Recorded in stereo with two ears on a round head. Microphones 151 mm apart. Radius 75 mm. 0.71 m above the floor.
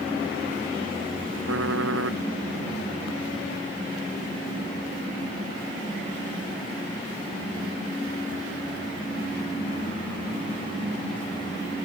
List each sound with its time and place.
1.5 s typing on a keyboard: 90° right